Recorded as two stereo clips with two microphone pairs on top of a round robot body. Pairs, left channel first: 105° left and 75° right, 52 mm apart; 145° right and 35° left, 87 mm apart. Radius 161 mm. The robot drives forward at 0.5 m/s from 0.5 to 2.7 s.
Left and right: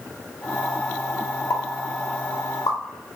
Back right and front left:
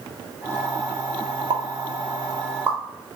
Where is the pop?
55° left, 0.7 m; by 2.8 s 110° left, 0.6 m.